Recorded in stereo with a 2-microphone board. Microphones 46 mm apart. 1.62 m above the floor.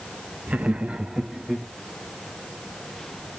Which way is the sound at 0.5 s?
35° right (ahead or behind).